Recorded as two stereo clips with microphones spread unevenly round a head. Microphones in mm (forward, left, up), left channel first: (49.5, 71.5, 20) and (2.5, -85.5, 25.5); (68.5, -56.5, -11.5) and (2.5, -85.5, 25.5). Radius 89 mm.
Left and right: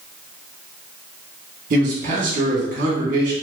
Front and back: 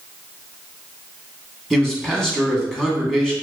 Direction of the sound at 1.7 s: 65° right.